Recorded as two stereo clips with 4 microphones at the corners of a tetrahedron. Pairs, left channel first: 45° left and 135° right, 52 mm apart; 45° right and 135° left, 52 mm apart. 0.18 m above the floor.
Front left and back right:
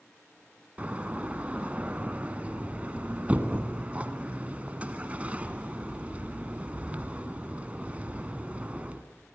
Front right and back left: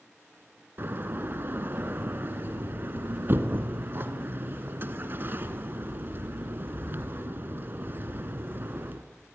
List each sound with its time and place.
0.8 s a door slam: 170° left, 1.6 m